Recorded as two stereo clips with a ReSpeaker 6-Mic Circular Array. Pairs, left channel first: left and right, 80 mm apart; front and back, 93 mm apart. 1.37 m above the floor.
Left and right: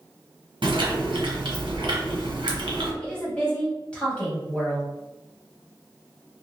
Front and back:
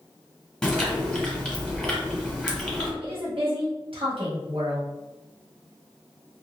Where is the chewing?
85° right, 1.2 m.